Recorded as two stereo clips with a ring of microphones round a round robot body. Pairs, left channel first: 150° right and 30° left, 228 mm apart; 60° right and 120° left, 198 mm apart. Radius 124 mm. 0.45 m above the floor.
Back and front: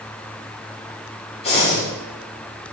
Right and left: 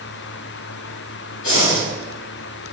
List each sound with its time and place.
1.4 s breathing: 85° right, 3.5 m